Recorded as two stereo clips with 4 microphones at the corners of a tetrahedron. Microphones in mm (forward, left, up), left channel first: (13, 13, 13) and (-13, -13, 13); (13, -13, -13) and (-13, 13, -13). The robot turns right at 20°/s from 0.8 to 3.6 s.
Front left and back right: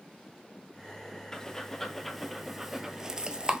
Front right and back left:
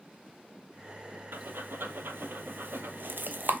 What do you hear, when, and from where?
1.3 s breathing: 115° left, 0.6 m; by 3.6 s 160° left, 0.6 m